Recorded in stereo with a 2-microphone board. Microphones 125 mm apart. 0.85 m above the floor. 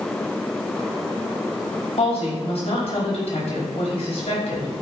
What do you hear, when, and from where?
2.0 s a woman speaking: 60° left (ahead or behind), 5 m